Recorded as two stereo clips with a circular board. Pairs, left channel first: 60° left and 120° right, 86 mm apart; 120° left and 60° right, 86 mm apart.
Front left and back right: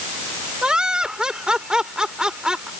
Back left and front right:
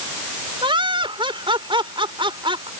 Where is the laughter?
40° right.